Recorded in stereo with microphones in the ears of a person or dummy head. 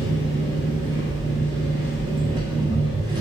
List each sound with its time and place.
0.0 s an engine running: 25° right (ahead or behind), 1.2 m